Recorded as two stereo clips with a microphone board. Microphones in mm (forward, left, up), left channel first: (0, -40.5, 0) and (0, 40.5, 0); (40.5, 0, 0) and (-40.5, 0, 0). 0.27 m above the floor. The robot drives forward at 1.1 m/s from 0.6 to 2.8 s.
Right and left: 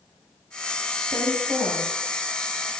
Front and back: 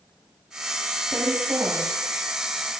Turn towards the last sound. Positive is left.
turn(degrees=135)